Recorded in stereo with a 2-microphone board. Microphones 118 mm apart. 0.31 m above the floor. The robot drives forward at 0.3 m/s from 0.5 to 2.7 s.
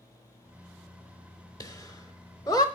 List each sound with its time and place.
1.6 s laughter: 30° left (ahead or behind), 1.2 m